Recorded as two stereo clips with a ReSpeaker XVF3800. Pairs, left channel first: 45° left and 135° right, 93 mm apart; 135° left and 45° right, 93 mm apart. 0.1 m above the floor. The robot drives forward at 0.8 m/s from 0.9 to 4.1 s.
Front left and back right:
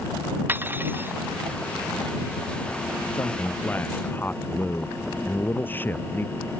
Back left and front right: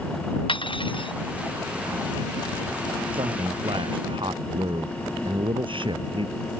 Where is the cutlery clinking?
160° left.